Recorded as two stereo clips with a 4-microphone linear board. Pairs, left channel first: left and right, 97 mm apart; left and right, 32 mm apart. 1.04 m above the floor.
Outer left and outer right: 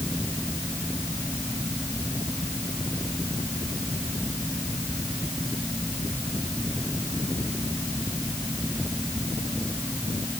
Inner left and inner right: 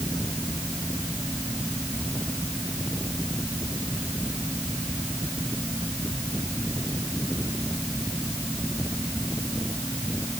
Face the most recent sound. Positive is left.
No sound to turn to.